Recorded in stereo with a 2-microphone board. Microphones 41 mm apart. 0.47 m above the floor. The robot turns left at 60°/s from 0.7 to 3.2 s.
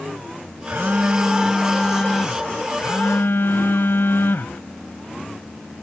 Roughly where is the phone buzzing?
Behind right.